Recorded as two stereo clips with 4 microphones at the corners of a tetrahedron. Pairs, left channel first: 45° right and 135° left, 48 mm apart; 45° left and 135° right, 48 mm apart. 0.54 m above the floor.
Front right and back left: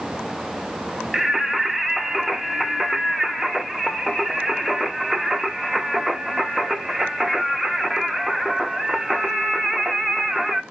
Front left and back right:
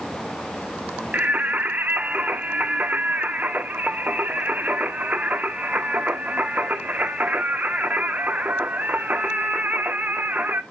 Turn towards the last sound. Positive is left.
turn(degrees=-135)